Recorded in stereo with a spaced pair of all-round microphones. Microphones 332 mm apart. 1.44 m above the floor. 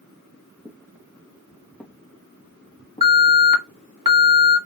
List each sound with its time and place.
0.7 s footsteps: 10° right (ahead or behind), 3 m; by 3.4 s 25° left (ahead or behind), 3.5 m
3.0 s an alarm: 80° right, 2 m